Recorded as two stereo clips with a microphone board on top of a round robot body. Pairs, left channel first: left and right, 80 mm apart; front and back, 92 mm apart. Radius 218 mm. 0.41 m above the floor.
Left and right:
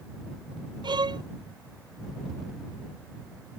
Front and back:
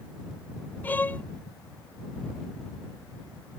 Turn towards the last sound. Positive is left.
turn(degrees=-70)